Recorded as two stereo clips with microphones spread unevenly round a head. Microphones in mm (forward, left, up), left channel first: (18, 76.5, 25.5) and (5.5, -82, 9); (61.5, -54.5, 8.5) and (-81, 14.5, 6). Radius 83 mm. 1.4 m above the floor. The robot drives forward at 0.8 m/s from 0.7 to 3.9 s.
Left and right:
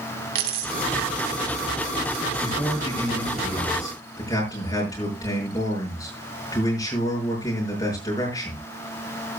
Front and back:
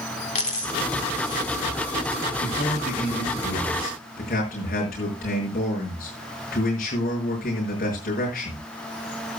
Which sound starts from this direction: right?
A dropped coin, at 0.3 s.